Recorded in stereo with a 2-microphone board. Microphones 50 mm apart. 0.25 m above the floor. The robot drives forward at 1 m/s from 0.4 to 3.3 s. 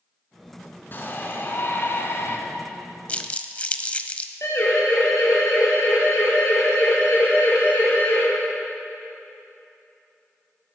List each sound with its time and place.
0.9 s a shout: 40° left (ahead or behind), 3 m; by 2.4 s 55° left (ahead or behind), 2.5 m
3.1 s crumpling: 30° left (ahead or behind), 0.8 m; by 4.3 s 25° left (ahead or behind), 0.9 m
4.4 s a siren: 75° left (ahead or behind), 4.5 m; by 8.2 s 55° left (ahead or behind), 5 m